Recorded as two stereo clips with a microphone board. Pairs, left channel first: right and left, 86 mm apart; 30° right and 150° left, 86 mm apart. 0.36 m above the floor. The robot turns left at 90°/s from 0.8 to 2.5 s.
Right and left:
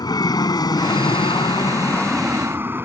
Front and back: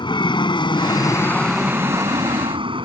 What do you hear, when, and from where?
0.0 s an aircraft: 55° right; by 2.9 s 155° left